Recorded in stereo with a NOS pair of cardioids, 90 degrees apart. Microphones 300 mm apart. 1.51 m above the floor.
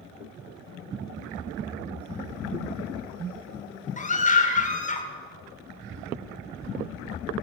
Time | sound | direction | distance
1.6 | a splash | 35° right | 2 m
4.0 | a scream | 25° left | 2 m